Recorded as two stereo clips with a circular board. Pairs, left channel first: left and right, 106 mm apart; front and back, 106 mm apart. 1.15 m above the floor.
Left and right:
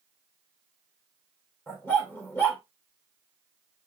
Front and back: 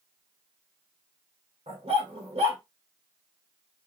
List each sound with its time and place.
1.7 s a dog barking: 160° left, 1.9 m